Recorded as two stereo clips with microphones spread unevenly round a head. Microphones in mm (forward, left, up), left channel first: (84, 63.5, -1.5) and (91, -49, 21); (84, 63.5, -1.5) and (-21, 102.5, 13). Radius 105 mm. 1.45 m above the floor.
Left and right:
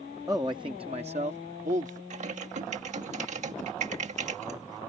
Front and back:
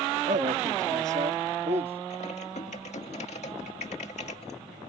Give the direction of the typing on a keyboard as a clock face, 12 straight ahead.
3 o'clock.